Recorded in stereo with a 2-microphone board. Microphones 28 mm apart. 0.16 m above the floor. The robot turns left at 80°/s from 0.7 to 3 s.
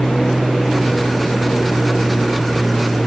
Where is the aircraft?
170° left; by 3.1 s 10° right.